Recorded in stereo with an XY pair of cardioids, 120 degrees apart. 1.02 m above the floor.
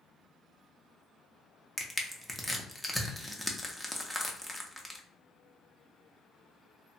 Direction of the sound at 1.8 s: Straight ahead.